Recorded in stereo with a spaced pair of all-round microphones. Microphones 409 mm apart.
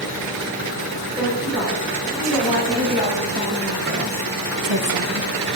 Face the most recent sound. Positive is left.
turn(degrees=-30)  # may be behind; listen again after turning